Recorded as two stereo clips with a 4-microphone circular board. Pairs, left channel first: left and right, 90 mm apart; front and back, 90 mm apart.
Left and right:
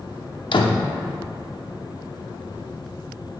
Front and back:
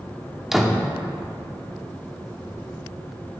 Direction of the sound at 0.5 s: 95° left.